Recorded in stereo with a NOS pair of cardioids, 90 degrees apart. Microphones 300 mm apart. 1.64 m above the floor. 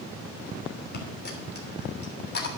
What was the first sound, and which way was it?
A dropped coin, 35° left.